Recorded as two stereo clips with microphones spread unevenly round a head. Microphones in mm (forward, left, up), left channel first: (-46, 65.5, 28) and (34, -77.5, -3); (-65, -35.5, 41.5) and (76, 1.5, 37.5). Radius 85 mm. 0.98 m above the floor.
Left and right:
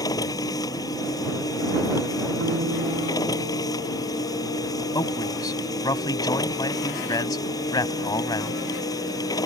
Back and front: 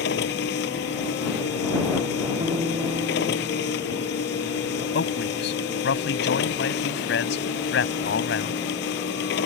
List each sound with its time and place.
0.0 s a machine running: 170° right
2.4 s a guitar: 50° right
5.0 s a man speaking: 175° right